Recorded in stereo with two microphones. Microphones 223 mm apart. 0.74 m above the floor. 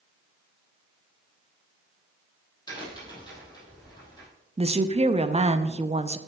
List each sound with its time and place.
2.7 s a crack: 20° left (ahead or behind), 4 m
4.6 s a woman speaking: 30° right (ahead or behind), 0.5 m